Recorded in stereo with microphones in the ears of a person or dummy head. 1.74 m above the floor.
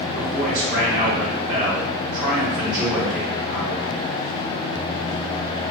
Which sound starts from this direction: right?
A man speaking, at 0.1 s.